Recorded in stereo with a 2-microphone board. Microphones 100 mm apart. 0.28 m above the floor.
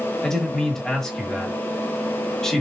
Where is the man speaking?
5° left (ahead or behind), 1.0 m.